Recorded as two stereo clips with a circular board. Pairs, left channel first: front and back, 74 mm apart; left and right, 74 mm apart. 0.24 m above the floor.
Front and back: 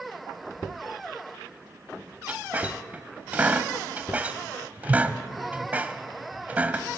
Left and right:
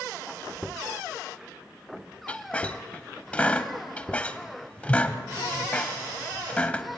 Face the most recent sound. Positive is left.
turn(degrees=140)